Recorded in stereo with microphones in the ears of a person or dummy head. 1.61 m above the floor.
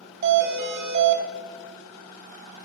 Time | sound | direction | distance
0.2 | a doorbell | 45° right (ahead or behind) | 0.7 m